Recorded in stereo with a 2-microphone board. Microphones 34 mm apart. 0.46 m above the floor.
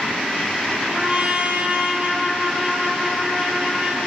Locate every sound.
0.9 s a trumpet: 40° right (ahead or behind), 1.8 m